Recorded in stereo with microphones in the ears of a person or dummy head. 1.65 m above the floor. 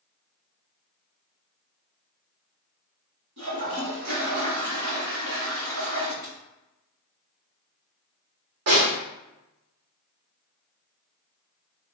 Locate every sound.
3.4 s a toilet flushing: 75° right (ahead or behind), 1.7 m
6.2 s a dropped coin: 40° right (ahead or behind), 1.3 m
8.7 s a snare drum: 60° right (ahead or behind), 1.0 m